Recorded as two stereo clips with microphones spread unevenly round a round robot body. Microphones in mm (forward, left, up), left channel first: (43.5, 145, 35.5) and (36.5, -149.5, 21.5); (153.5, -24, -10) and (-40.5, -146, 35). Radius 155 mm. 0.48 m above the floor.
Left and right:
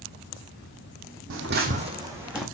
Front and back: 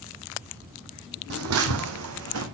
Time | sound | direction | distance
1.3 | footsteps | 140° right | 1.6 m